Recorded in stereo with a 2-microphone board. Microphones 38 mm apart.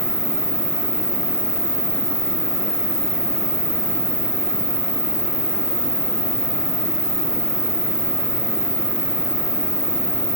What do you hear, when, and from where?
0.0 s an insect: 60° right (ahead or behind), 1.2 m